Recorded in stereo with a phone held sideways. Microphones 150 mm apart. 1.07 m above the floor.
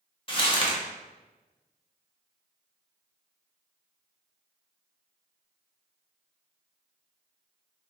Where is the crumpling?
35° left (ahead or behind), 0.8 m.